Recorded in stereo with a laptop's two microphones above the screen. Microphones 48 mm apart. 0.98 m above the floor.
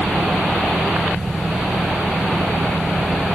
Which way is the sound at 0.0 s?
40° right (ahead or behind).